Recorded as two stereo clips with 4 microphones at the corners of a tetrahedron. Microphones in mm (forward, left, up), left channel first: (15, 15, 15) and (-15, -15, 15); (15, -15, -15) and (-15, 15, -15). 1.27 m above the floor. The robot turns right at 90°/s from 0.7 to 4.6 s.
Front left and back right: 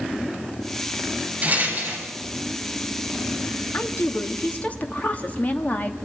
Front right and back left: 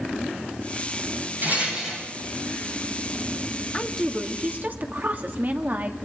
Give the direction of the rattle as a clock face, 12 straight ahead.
6 o'clock.